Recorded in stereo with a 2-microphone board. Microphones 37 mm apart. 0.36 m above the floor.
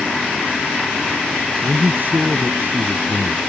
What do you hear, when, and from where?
1.6 s a man speaking: 55° right (ahead or behind)